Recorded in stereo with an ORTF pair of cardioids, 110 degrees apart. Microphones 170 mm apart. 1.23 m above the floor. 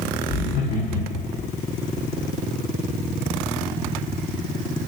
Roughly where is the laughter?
Ahead left.